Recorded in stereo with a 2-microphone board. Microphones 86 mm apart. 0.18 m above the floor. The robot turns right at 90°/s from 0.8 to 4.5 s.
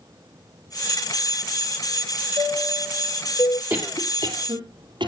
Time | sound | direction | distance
2.4 | a chime | 60° right | 3 m
3.7 | a cough | 25° right (ahead or behind) | 4 m